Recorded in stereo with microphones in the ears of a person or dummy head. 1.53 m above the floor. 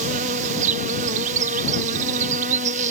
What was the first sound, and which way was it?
An insect, 40° right (ahead or behind).